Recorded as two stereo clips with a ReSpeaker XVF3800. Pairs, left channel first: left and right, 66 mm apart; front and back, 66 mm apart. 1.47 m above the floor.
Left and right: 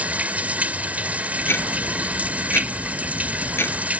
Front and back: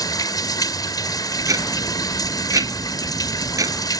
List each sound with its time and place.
0.0 s running water: 20° right
1.4 s ticking: 145° left